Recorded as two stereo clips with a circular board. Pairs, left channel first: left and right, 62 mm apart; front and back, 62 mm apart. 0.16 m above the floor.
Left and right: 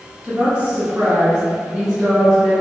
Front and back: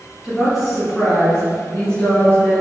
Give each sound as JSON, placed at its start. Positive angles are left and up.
{"t": 0.2, "sound": "a woman speaking", "azimuth_deg": -110, "distance_m": 1.5}